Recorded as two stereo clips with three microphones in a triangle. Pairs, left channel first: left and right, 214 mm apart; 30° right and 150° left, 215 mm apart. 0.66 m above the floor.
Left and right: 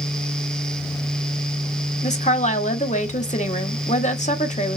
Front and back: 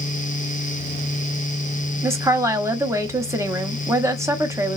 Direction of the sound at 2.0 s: 85° left.